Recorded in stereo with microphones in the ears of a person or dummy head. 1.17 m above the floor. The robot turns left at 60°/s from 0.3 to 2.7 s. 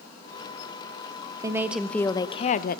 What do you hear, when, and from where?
1.4 s a woman speaking: 160° right, 0.9 m; by 2.8 s 125° left, 0.9 m